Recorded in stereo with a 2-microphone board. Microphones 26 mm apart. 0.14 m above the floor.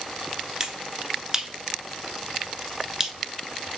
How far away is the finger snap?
About 1.4 m.